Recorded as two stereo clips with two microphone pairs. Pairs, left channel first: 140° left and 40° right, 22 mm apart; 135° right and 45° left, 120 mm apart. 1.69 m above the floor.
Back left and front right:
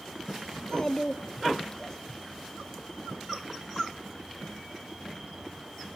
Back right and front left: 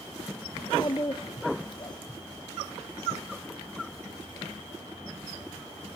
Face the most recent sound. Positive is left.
turn(degrees=-170)